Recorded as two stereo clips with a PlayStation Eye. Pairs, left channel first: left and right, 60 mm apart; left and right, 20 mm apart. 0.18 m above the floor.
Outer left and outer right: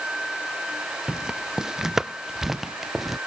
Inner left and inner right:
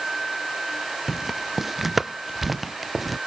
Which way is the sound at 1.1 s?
15° right (ahead or behind).